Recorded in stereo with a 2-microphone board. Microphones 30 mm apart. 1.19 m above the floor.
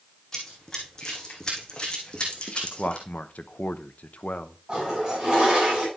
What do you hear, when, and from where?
0.3 s running footsteps: 15° left (ahead or behind), 4 m; by 3.1 s 40° left (ahead or behind), 3 m
2.6 s a man speaking: 65° left (ahead or behind), 0.7 m
4.7 s a toilet flushing: 35° right (ahead or behind), 8 m